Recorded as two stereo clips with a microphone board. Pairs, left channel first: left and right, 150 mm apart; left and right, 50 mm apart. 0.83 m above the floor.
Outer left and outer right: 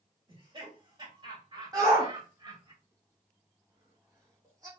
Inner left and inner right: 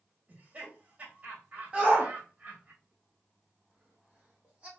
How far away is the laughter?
About 2.5 m.